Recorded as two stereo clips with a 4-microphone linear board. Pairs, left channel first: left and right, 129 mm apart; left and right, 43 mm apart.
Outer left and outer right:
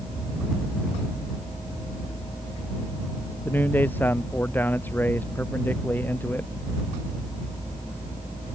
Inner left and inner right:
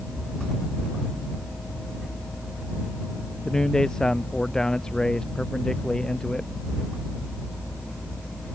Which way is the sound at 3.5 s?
15° left (ahead or behind).